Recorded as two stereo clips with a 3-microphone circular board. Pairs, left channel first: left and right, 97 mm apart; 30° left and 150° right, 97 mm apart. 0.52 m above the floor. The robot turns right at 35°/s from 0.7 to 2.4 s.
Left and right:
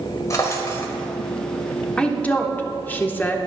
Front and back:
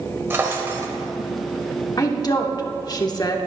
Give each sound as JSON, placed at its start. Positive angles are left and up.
{"t": 0.3, "sound": "a drawer", "azimuth_deg": 145, "distance_m": 1.5}
{"t": 2.0, "sound": "a woman speaking", "azimuth_deg": 15, "distance_m": 1.0}